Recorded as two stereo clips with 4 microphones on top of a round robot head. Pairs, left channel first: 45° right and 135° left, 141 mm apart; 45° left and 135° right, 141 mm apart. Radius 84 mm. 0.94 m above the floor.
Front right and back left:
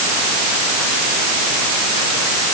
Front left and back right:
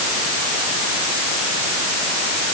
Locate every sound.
Only background noise.